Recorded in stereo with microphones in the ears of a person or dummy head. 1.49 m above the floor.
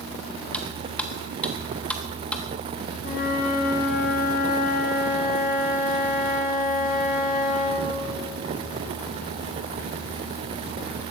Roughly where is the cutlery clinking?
Centre.